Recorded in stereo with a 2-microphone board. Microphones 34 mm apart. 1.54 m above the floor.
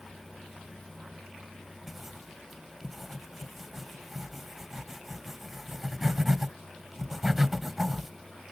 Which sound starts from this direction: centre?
Writing, at 1.9 s.